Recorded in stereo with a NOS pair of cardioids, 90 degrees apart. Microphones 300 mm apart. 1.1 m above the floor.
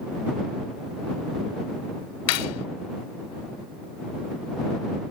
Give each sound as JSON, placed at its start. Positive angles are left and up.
{"t": 2.3, "sound": "cutlery clinking", "azimuth_deg": 55}